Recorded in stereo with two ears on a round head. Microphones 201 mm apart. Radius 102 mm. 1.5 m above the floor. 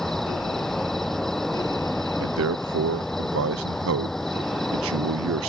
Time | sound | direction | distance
0.0 | an insect | centre (ahead or behind) | ?
2.2 | a man speaking | 65° right (ahead or behind) | ?